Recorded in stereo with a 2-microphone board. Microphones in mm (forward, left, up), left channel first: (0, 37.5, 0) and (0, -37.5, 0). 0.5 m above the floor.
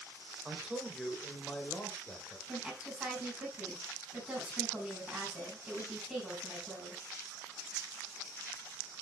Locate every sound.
0.5 s a man speaking: 15° right (ahead or behind), 2.5 m; by 2.4 s 30° left (ahead or behind), 2.5 m
2.5 s a woman speaking: 15° right (ahead or behind), 4.5 m